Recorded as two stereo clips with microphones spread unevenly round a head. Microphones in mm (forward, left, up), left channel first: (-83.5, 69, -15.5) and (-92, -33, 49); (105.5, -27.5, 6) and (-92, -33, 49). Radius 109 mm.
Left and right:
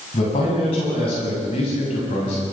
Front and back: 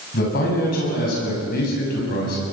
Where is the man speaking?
50° left, 7.5 m.